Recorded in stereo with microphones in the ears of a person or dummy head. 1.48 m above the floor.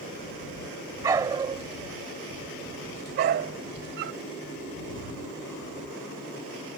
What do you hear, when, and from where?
1.0 s a dog barking: 25° right (ahead or behind); by 4.2 s 60° right (ahead or behind)